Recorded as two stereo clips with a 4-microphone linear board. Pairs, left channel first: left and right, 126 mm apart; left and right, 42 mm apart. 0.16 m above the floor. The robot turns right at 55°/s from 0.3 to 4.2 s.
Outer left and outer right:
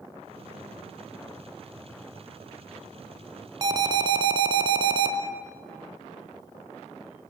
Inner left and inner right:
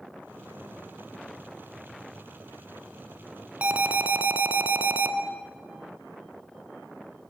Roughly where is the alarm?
Behind right.